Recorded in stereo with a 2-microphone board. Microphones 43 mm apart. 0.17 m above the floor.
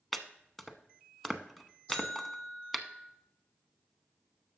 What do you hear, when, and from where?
0.1 s chopping: 5° left (ahead or behind), 0.6 m
1.9 s a buzzer: 20° left (ahead or behind), 3 m